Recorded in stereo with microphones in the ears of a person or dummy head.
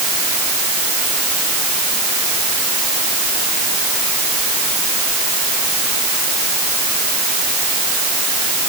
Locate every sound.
Only background noise.